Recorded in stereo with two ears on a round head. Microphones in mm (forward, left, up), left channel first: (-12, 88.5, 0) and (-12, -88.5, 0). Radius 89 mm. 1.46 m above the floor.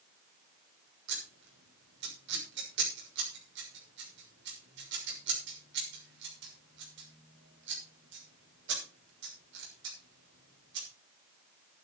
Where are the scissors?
65° right (ahead or behind), 6.5 m.